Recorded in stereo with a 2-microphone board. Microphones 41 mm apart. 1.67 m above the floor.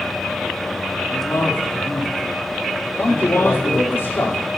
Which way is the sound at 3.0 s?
80° left.